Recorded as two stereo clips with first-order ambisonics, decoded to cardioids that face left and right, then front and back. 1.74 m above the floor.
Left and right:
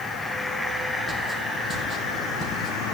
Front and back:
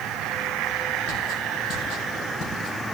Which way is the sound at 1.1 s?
Straight ahead.